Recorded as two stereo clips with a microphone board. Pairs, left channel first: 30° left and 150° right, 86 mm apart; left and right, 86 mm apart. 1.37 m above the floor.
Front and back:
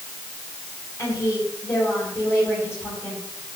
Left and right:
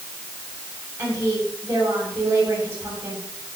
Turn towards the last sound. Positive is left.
turn(degrees=-30)